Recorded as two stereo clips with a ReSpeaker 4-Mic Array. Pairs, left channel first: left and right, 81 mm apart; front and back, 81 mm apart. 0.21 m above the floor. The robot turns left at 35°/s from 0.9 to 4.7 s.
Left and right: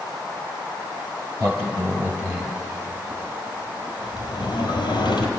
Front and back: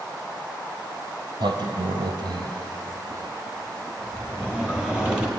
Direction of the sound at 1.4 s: 140° right.